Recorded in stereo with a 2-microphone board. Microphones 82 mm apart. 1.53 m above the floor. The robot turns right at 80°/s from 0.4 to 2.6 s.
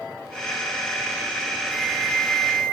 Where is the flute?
175° left, 1.3 m; by 2.8 s 110° right, 1.3 m.